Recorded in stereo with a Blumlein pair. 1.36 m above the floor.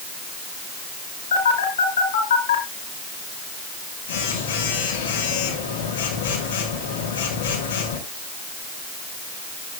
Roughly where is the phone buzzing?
Ahead left.